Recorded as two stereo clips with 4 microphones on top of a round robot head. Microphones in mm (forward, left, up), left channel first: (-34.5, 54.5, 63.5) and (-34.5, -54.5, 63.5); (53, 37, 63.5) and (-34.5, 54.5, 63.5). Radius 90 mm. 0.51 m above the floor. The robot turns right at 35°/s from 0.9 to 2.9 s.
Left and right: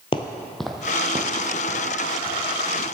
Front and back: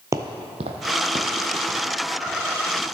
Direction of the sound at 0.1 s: 120° left.